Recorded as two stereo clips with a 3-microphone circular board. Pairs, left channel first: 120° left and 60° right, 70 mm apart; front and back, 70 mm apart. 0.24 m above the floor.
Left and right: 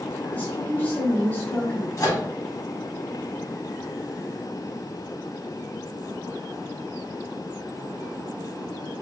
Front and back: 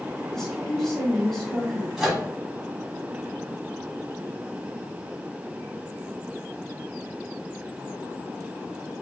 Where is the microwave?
95° left, 1.1 m.